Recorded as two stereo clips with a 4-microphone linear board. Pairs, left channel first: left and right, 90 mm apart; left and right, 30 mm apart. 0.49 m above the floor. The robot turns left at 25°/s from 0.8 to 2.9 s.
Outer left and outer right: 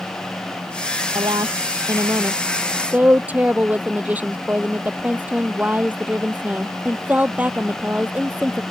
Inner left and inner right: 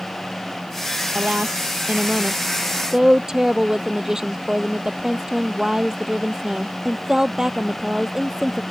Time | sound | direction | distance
1.1 | a woman speaking | 120° right | ?